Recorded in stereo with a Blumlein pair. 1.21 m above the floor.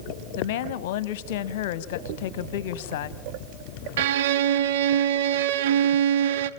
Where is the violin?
55° right, 0.8 m.